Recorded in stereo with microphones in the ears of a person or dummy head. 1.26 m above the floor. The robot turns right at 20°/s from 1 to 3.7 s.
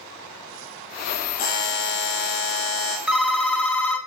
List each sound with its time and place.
1.4 s a buzzer: 55° left, 1.7 m; by 3.0 s 90° left, 1.7 m
3.1 s a phone ringing: 5° right (ahead or behind), 0.7 m; by 4.0 s 10° left (ahead or behind), 0.7 m